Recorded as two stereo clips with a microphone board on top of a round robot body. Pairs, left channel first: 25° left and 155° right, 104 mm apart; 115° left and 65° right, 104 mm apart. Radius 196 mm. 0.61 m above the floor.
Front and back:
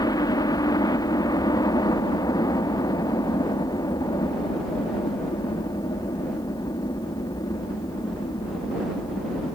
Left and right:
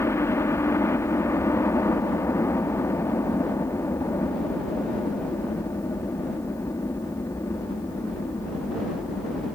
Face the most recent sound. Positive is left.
turn(degrees=55)